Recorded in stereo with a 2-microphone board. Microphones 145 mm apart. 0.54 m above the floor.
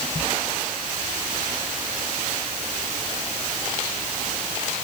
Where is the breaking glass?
I don't hear breaking glass.